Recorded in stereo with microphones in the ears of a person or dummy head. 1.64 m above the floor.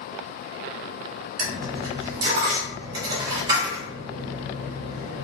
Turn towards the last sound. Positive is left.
turn(degrees=-25)  # may be behind; listen again after turning